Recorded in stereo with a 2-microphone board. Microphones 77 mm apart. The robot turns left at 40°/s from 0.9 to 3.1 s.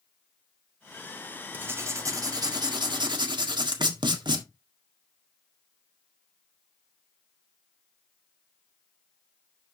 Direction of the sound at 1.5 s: 25° right.